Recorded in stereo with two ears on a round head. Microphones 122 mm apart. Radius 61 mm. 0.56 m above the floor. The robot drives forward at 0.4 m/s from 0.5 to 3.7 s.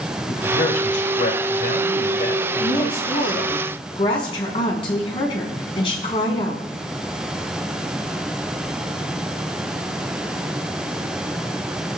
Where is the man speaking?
65° left (ahead or behind), 3 m; by 3.5 s 70° left (ahead or behind), 2.5 m.